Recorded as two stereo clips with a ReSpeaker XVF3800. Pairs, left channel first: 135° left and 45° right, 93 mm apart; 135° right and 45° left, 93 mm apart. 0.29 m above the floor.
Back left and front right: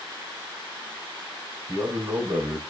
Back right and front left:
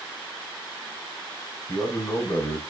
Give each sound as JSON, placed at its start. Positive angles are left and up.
{"t": 1.7, "sound": "a man speaking", "azimuth_deg": -85, "distance_m": 2.0}